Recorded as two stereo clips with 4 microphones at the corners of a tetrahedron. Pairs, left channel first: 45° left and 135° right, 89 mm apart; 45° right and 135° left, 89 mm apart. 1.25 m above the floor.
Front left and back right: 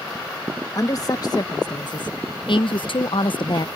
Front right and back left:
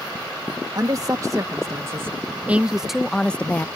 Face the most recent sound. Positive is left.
turn(degrees=20)